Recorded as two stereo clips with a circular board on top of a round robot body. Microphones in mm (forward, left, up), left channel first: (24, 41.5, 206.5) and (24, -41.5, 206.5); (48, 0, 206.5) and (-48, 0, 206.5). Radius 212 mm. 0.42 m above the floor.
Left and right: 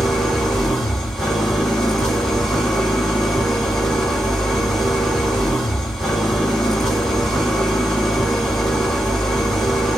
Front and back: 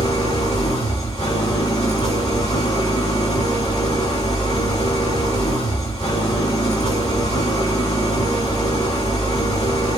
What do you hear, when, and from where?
0.0 s an engine running: 5° left, 3 m